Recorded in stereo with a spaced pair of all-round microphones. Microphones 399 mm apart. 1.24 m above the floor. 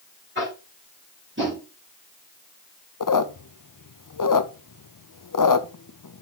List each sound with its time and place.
0.3 s tapping: 30° right (ahead or behind), 5 m
3.0 s a squeak: 50° left (ahead or behind), 0.6 m